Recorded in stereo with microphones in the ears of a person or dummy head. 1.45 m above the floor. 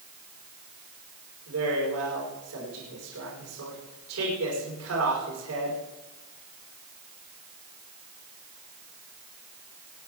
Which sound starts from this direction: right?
A man speaking, at 1.5 s.